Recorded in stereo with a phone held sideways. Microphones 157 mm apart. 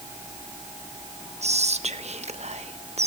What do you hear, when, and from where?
1.4 s whispering: 45° right (ahead or behind), 1.0 m